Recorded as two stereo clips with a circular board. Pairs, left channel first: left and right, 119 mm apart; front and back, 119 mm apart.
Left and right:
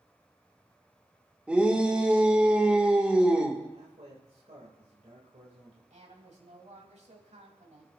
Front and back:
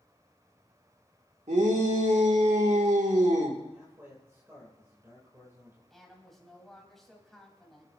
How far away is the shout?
About 2 m.